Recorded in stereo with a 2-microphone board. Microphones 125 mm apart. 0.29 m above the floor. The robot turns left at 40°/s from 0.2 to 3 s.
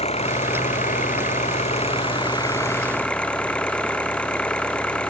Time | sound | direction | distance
0.0 | an engine running | 120° left | ?